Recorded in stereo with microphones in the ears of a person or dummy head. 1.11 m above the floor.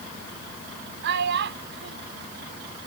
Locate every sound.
1.0 s a child speaking: 70° right (ahead or behind)